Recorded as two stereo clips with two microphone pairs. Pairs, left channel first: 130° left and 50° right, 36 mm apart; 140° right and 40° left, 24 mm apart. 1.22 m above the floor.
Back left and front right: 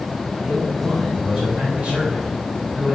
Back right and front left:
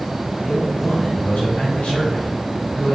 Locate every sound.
0.4 s a man speaking: 110° right, 4 m